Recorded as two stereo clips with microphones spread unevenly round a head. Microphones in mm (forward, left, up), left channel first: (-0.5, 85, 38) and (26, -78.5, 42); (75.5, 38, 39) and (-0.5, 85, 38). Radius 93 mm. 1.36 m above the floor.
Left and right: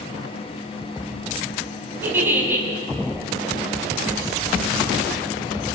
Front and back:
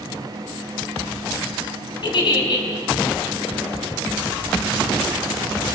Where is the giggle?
5° right, 5.5 m.